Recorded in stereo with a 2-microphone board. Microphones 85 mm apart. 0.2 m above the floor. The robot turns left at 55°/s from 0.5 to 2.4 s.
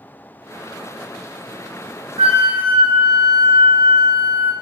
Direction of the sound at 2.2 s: 75° right (ahead or behind).